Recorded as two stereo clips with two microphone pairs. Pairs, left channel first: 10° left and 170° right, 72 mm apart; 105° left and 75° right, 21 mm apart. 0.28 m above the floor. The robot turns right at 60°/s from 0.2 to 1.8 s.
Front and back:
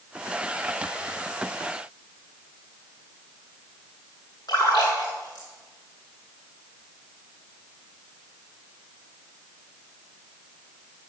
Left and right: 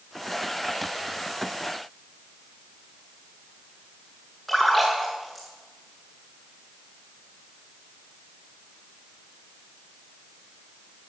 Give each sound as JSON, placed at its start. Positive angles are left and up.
{"t": 4.5, "sound": "a splash", "azimuth_deg": 25, "distance_m": 8.0}